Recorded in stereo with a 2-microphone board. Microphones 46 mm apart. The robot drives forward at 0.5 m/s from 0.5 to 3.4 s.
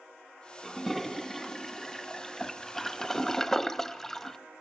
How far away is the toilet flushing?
About 2 m.